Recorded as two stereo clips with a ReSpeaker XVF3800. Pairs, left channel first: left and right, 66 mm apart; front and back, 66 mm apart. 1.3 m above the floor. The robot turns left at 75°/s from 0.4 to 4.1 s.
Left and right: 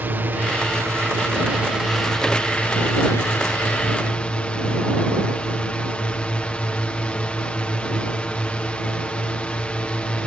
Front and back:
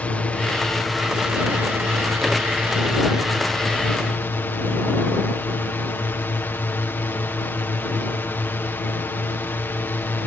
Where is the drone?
55° right; by 10.3 s 30° left.